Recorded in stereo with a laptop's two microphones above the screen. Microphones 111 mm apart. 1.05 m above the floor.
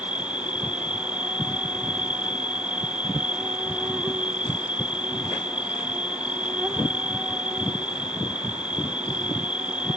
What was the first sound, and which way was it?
An insect, 10° right (ahead or behind).